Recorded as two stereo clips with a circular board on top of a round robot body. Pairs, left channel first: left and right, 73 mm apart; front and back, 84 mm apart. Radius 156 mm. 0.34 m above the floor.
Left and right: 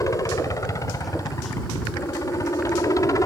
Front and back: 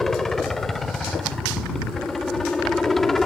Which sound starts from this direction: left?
A helicopter, at 0.0 s.